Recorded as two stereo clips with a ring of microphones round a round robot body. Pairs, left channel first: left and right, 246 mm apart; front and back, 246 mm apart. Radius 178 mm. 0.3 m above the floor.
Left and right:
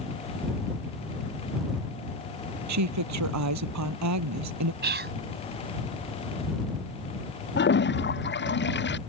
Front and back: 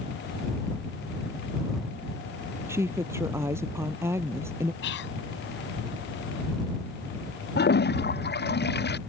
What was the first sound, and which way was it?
A woman speaking, 95° right.